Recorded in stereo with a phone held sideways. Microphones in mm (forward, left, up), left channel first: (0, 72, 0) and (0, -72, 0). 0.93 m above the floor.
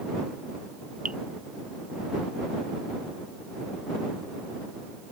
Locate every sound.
1.1 s dripping: 60° right (ahead or behind)